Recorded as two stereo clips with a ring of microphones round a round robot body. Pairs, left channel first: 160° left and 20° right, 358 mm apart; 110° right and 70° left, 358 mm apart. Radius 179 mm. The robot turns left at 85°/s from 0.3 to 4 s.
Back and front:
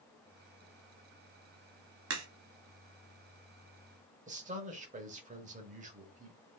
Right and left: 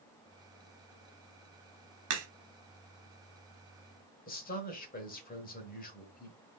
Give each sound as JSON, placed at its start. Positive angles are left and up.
{"t": 2.1, "sound": "a crack", "azimuth_deg": 30, "distance_m": 1.3}
{"t": 4.3, "sound": "a man speaking", "azimuth_deg": -70, "distance_m": 1.0}